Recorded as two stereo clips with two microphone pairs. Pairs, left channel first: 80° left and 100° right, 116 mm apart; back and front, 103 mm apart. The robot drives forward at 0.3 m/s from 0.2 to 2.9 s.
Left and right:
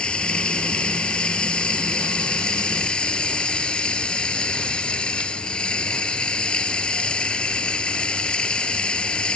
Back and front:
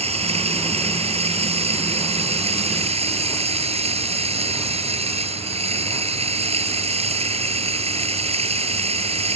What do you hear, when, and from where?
0.0 s running water: straight ahead